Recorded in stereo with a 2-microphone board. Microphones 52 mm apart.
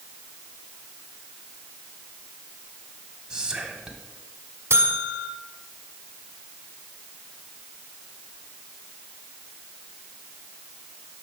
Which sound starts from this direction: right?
A buzzer, at 4.7 s.